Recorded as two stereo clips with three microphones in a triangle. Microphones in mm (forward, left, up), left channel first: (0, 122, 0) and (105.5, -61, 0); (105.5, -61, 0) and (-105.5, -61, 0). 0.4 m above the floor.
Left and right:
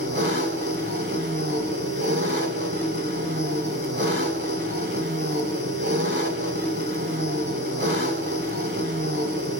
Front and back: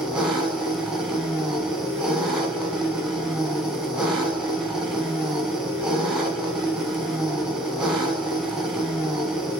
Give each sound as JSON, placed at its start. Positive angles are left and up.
{"t": 0.0, "sound": "an engine running", "azimuth_deg": -95, "distance_m": 1.5}